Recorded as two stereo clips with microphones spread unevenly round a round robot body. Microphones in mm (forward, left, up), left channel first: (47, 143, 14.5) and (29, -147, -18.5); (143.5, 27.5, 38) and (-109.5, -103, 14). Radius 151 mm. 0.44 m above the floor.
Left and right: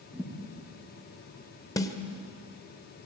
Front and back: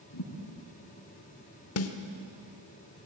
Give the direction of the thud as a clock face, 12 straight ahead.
12 o'clock.